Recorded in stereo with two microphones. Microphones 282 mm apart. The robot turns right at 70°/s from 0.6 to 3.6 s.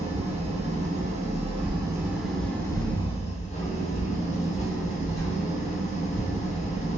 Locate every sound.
0.0 s an engine running: 20° right (ahead or behind), 0.8 m; by 7.0 s 25° left (ahead or behind), 0.8 m
1.6 s a whoosh: centre (ahead or behind), 0.9 m; by 6.3 s 35° left (ahead or behind), 0.9 m